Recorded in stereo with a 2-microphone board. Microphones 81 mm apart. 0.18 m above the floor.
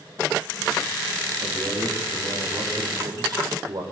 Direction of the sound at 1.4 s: 50° right (ahead or behind).